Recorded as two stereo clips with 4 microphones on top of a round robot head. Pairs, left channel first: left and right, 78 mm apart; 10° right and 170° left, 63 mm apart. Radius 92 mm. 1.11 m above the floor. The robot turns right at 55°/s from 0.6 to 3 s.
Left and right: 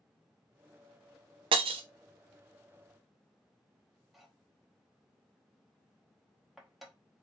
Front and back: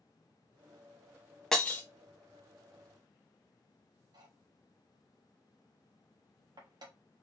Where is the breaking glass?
95° right, 0.5 m; by 1.8 s 75° right, 0.5 m.